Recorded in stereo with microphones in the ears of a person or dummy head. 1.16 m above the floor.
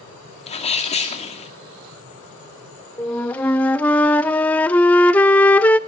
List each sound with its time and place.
0.5 s a sneeze: 40° left (ahead or behind), 2.5 m
3.0 s a flute: 10° left (ahead or behind), 0.6 m